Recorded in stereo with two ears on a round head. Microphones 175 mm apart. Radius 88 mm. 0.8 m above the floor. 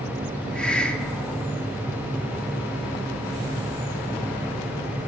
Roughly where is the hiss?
Centre.